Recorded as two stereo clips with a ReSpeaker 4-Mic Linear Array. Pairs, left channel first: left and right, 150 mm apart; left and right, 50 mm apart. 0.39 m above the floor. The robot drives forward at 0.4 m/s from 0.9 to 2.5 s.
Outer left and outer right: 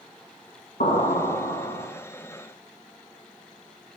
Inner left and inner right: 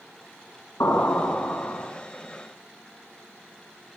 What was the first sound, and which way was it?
An explosion, 80° left.